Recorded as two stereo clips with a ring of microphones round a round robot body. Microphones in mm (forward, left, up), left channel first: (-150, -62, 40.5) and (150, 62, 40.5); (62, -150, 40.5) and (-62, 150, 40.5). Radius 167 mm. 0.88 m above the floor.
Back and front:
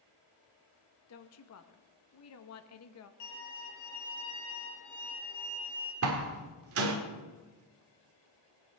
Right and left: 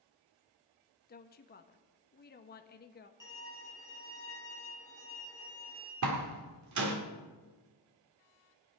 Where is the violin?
145° right, 3.5 m.